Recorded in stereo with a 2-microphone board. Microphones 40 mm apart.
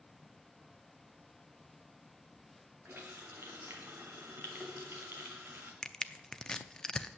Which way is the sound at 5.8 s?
15° left (ahead or behind).